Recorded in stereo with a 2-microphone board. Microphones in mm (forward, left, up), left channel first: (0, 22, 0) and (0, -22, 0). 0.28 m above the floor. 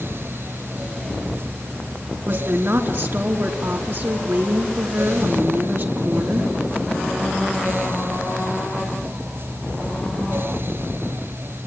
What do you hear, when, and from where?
2.2 s a woman speaking: 60° right (ahead or behind), 4 m